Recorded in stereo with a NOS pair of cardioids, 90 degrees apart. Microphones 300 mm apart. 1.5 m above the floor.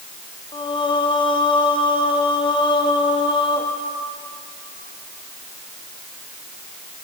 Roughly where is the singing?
Ahead.